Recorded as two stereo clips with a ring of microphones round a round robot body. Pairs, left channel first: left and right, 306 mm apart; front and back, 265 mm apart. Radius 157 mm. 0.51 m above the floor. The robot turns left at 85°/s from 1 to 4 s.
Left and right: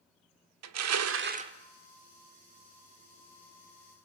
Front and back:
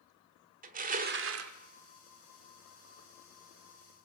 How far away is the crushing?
About 1.2 m.